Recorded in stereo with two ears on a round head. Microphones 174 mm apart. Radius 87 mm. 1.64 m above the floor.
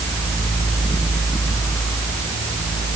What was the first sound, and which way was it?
Only background noise.